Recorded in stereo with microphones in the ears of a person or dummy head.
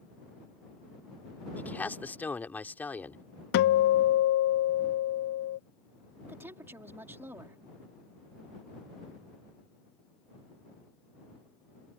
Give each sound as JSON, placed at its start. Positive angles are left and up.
{"t": 1.6, "sound": "a man speaking", "side_deg": 5}
{"t": 3.5, "sound": "a guitar", "side_deg": 55}
{"t": 6.2, "sound": "a woman speaking", "side_deg": -15}